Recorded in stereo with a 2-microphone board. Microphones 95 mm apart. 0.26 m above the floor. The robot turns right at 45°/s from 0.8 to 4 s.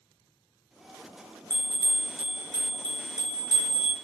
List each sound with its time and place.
1.5 s a bell: 50° left, 1.0 m; by 3.9 s 160° left, 1.0 m